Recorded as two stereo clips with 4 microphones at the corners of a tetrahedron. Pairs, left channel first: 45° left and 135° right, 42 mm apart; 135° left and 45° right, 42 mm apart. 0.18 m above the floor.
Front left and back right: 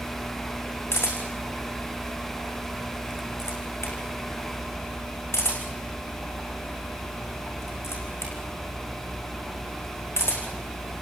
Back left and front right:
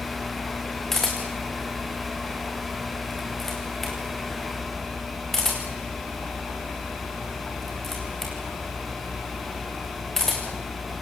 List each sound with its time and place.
0.9 s a camera shutter: 55° left, 5 m